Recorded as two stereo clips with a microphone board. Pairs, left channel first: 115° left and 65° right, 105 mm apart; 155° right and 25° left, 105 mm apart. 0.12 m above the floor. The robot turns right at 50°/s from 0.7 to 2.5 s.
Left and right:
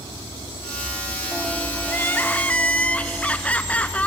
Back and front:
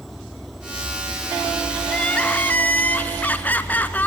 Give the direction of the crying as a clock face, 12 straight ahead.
8 o'clock.